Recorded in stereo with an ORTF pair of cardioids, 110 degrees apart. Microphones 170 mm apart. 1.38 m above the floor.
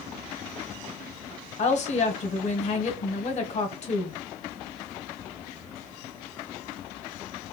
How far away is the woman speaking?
About 0.9 m.